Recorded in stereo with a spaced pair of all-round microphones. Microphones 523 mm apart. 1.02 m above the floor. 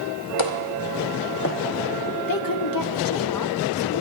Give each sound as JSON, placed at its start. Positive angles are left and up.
{"t": 0.4, "sound": "footsteps", "side_deg": 60, "distance_m": 1.8}
{"t": 2.3, "sound": "a woman speaking", "side_deg": 40, "distance_m": 0.9}